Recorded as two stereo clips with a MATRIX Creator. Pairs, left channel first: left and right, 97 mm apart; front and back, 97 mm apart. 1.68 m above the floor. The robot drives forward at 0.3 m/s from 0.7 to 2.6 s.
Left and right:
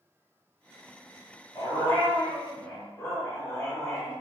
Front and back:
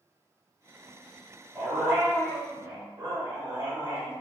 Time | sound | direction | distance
1.6 | a dog barking | 115° left | 1.4 m